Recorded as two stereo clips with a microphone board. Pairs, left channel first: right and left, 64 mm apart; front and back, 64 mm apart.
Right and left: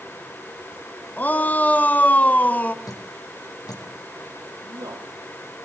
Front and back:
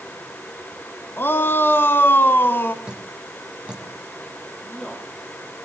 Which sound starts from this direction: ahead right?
A shout, at 1.2 s.